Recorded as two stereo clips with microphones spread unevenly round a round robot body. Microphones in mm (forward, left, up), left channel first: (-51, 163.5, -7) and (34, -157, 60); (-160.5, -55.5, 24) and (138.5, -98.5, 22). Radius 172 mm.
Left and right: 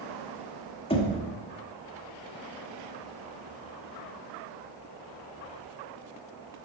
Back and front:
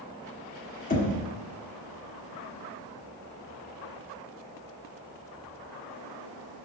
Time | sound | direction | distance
0.9 | knocking | 140° left | 1.0 m